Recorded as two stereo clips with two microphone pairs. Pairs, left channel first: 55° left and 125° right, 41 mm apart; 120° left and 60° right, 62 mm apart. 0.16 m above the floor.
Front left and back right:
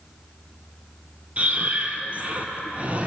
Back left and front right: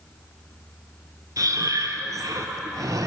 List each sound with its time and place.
1.4 s breathing: 70° right, 0.5 m